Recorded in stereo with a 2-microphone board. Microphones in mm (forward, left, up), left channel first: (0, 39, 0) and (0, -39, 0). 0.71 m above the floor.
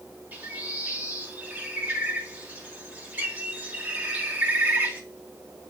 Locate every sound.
0.3 s a bird: 25° right (ahead or behind), 3 m